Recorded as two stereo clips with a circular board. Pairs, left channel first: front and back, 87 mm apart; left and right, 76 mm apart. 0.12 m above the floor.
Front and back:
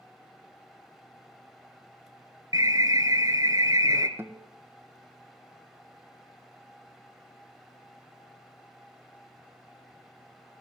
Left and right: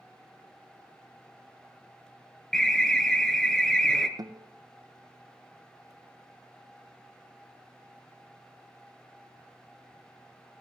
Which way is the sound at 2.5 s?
170° left.